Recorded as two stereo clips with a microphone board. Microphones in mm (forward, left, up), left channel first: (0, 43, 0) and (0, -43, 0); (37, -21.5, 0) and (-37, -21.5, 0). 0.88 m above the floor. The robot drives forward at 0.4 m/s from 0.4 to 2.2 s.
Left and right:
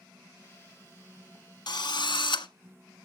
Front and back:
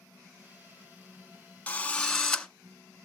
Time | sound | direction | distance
1.7 | a drill | 70° left | 1.0 m